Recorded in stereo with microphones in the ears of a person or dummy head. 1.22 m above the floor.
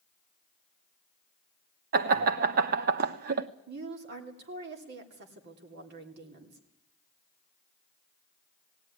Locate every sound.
1.9 s laughter: 50° right (ahead or behind), 1.1 m
3.7 s a woman speaking: 55° right (ahead or behind), 3 m